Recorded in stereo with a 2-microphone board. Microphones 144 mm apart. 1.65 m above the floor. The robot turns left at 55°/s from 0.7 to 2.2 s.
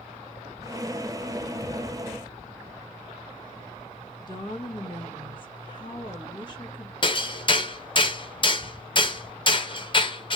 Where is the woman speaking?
35° left (ahead or behind), 1.5 m.